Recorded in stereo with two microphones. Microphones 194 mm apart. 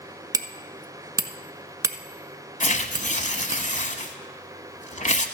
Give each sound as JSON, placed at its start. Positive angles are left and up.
{"t": 0.3, "sound": "hammering", "side_deg": -20, "distance_m": 0.6}
{"t": 2.6, "sound": "tearing paper", "side_deg": 45, "distance_m": 0.9}